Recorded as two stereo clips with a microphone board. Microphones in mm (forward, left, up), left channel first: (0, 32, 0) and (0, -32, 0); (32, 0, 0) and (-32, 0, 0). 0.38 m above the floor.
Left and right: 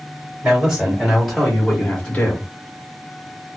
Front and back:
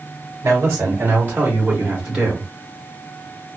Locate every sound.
0.4 s a man speaking: 150° right, 1.3 m; by 2.5 s 110° left, 1.0 m